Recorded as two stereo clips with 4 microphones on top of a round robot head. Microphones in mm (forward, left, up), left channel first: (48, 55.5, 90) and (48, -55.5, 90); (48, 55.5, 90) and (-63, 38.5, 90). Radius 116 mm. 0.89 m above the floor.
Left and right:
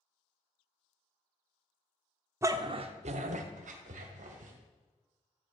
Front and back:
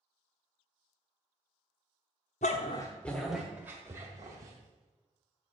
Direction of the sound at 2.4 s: 25° right.